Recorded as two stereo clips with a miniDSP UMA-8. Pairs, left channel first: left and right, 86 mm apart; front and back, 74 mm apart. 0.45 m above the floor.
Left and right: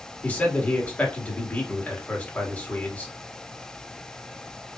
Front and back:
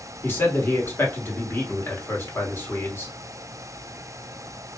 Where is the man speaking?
30° left, 1.2 m.